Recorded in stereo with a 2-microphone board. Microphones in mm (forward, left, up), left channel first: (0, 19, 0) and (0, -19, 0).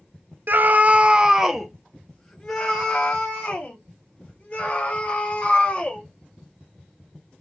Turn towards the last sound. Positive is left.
turn(degrees=30)  # may be behind; listen again after turning